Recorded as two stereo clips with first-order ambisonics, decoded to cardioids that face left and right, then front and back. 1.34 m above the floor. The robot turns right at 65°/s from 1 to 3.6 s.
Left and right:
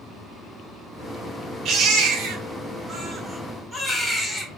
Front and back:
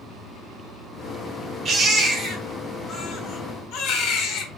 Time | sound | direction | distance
1.6 | a baby crying | 125° right | 1.3 m